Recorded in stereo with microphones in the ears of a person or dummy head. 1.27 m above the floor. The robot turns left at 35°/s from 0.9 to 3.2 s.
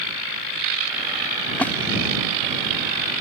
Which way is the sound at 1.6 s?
5° left (ahead or behind).